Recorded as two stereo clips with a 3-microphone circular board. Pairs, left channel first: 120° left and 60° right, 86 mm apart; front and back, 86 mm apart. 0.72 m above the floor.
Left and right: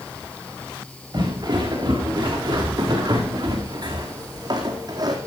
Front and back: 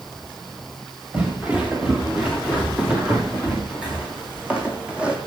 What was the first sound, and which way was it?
Footsteps, 105° right.